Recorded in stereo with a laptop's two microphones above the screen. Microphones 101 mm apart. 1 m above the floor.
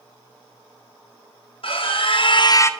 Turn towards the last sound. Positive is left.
turn(degrees=20)  # may be behind; listen again after turning